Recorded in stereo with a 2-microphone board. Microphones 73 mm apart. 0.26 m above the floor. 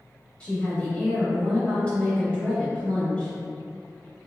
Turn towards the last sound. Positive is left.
turn(degrees=15)  # may be behind; listen again after turning